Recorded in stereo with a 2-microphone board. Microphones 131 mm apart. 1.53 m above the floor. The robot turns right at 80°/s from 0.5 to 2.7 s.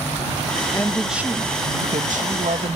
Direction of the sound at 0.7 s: 155° left.